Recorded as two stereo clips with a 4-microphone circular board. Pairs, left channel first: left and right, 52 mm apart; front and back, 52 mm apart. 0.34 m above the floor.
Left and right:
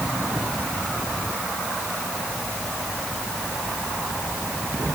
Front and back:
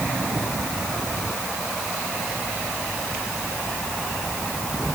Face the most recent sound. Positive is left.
No sound to turn to.